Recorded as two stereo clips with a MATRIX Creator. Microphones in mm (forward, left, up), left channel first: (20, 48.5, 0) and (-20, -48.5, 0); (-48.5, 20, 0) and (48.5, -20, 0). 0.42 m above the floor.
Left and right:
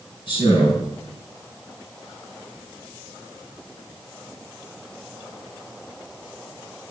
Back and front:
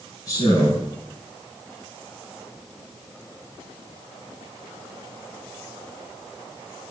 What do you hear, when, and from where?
0.3 s a man speaking: 105° left, 5 m